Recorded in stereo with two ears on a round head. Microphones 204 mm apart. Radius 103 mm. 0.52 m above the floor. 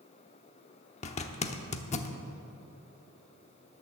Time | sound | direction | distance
1.0 | a zipper | 30° left (ahead or behind) | 1.0 m